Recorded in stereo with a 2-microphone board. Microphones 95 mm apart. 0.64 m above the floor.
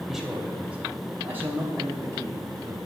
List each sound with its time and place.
0.1 s a man speaking: 5° right (ahead or behind), 2.5 m; by 2.8 s 40° right (ahead or behind), 3 m